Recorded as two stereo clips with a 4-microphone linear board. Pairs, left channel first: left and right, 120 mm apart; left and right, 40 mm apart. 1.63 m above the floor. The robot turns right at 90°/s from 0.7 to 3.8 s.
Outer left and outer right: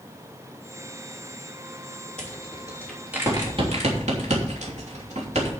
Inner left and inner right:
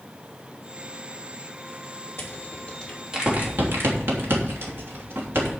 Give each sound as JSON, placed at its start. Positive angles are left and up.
{"t": 2.2, "sound": "a rattle", "side_deg": 75, "distance_m": 3.0}